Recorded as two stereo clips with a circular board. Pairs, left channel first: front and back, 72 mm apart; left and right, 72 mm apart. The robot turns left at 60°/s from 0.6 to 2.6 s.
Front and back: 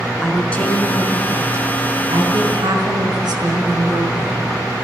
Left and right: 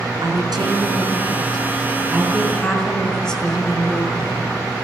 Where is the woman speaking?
70° right, 4.5 m; by 4.4 s 170° left, 4.5 m.